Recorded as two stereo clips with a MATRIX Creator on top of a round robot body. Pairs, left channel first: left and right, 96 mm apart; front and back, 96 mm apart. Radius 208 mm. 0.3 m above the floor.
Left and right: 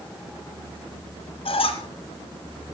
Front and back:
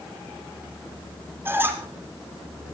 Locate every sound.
1.4 s a squeak: 115° left, 3.5 m